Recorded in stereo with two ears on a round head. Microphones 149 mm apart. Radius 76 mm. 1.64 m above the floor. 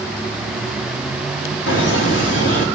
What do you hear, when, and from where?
1.7 s laughter: 75° left (ahead or behind), 3.5 m